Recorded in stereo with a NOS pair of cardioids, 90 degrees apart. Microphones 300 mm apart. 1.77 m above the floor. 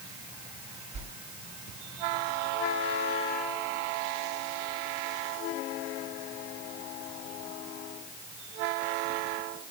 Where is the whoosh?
65° right, 1.7 m.